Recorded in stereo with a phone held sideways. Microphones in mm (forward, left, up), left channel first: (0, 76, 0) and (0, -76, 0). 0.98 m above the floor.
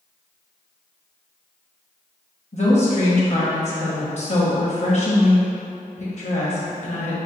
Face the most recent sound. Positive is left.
turn(degrees=50)  # may be behind; listen again after turning